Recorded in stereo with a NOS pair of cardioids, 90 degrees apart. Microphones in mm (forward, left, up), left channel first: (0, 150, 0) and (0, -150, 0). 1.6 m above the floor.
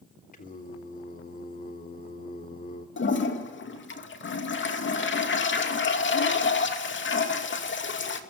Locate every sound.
0.3 s singing: 30° left, 3 m
3.0 s a toilet flushing: 40° left, 2.5 m